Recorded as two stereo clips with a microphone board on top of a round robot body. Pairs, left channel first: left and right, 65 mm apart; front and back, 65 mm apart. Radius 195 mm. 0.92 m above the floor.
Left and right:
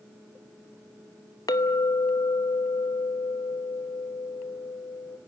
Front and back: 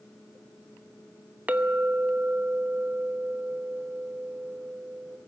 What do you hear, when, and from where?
1.5 s a clink: 110° left, 1.0 m